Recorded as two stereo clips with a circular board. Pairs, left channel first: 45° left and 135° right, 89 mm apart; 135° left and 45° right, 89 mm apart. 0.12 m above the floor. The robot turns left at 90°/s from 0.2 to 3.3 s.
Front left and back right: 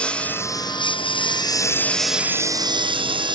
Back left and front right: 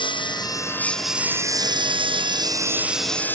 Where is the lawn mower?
120° left; by 3.4 s 155° right.